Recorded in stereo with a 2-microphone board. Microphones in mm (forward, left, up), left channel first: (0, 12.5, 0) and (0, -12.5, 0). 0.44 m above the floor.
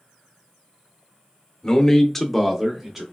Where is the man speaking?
25° left (ahead or behind), 0.9 m; by 3.0 s 20° right (ahead or behind), 0.8 m.